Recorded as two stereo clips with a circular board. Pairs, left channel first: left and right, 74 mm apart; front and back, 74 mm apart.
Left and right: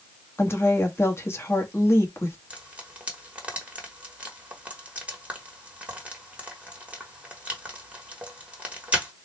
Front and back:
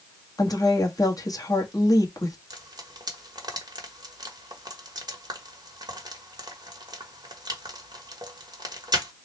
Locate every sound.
0.4 s a woman speaking: 35° left, 1.1 m
2.5 s frying: 160° right, 1.2 m